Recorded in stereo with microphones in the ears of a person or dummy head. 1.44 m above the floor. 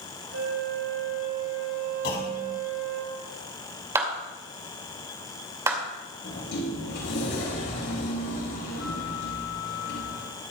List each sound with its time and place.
0.3 s a flute: 75° right (ahead or behind), 6.5 m
2.0 s a clunk: 55° left (ahead or behind), 4 m
4.0 s a clap: 10° right (ahead or behind), 2 m
6.2 s a sliding door: 60° left (ahead or behind), 5 m